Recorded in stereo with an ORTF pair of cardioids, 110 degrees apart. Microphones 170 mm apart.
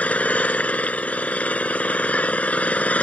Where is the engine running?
10° left.